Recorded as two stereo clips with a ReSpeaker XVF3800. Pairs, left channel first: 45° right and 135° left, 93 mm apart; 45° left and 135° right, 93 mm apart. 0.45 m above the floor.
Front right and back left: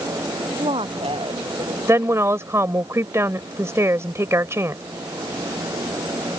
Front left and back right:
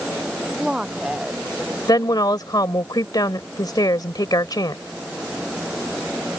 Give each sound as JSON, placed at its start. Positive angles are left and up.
{"t": 0.6, "sound": "a woman speaking", "azimuth_deg": 145}
{"t": 1.9, "sound": "a woman speaking", "azimuth_deg": 80}